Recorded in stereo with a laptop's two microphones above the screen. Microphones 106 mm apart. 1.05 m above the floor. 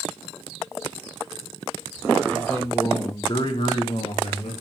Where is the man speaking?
5° left (ahead or behind), 1.9 m; by 4.5 s 70° left (ahead or behind), 2 m.